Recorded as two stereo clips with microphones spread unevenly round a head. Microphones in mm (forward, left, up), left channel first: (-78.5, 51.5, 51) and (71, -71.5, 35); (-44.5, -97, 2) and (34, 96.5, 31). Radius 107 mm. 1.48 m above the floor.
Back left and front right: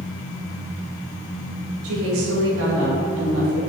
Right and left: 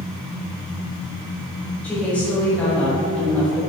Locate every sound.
1.8 s a woman speaking: 30° right, 2.5 m